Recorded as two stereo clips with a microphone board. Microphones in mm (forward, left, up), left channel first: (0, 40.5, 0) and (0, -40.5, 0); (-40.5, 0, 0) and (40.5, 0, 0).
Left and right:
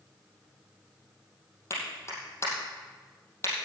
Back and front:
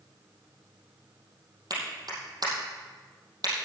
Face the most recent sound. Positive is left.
turn(degrees=35)